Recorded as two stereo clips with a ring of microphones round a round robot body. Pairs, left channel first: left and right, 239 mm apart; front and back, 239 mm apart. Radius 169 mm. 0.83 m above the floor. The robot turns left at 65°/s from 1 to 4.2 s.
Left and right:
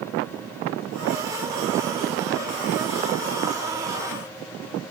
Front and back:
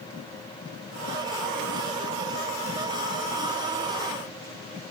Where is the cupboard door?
I don't hear a cupboard door.